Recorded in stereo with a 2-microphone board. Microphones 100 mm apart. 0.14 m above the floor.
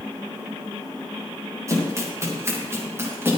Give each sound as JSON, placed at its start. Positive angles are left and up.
{"t": 1.7, "sound": "running footsteps", "side_deg": -30, "distance_m": 9.0}